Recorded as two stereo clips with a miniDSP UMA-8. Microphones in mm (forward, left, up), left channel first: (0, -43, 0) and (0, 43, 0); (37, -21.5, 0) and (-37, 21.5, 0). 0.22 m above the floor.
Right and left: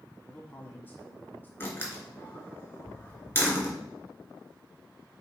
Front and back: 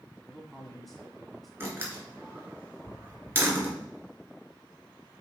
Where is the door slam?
150° right, 2.5 m.